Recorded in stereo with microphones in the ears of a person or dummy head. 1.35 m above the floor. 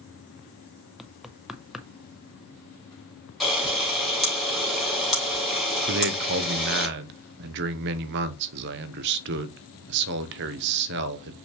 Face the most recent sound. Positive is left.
turn(degrees=-60)  # may be behind; listen again after turning